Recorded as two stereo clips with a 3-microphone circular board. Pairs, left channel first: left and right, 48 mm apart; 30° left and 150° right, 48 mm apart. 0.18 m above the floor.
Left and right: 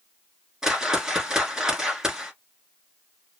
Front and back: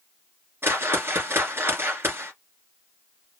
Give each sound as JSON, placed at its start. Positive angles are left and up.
{"t": 0.6, "sound": "a whoosh", "azimuth_deg": -165, "distance_m": 1.2}